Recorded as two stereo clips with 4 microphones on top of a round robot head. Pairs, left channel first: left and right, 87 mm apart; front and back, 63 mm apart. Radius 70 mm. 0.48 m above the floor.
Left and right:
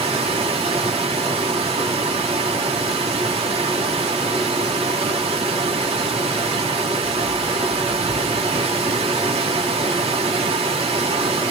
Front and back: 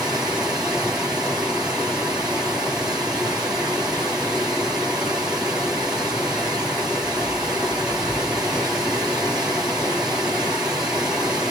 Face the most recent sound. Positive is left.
turn(degrees=-95)